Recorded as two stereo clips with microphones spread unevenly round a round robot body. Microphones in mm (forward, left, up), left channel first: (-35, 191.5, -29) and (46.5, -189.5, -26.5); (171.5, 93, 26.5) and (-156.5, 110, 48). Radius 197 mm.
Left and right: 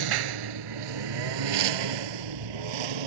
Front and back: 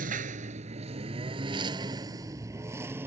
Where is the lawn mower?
115° right; by 3.1 s 100° right.